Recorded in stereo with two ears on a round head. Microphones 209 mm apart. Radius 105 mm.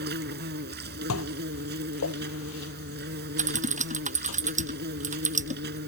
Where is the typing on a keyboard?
35° right (ahead or behind).